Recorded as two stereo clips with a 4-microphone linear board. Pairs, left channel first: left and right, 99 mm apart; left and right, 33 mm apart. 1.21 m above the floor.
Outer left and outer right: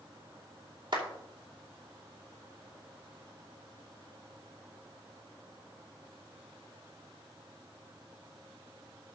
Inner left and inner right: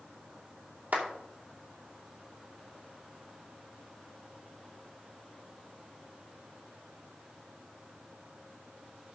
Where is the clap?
55° right (ahead or behind), 2.5 m.